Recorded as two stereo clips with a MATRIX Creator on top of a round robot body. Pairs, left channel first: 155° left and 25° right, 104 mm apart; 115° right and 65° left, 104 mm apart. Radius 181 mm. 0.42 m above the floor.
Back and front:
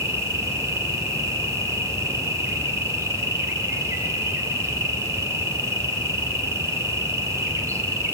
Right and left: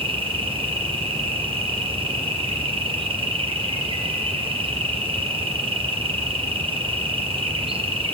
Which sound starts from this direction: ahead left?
An insect, at 0.0 s.